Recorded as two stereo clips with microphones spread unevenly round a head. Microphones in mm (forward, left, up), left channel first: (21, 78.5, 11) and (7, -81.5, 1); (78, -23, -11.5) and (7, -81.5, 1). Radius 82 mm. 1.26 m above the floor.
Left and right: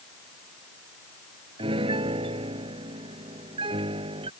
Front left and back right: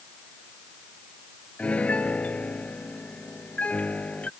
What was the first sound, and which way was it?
A piano, 35° right.